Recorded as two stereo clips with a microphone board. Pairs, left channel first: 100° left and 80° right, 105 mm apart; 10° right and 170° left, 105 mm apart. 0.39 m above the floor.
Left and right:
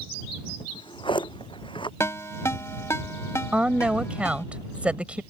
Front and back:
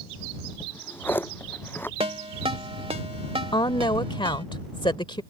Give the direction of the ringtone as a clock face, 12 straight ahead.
7 o'clock.